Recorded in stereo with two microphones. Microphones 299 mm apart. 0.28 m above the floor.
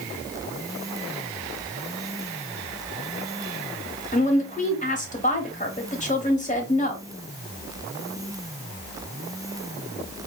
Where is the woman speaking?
25° left (ahead or behind), 1.0 m.